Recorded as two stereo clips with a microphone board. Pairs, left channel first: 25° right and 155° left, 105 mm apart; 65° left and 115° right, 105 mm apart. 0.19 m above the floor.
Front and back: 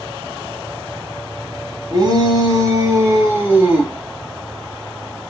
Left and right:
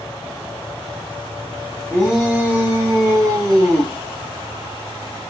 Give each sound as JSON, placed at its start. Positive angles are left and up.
{"t": 1.9, "sound": "a shout", "azimuth_deg": 160, "distance_m": 2.0}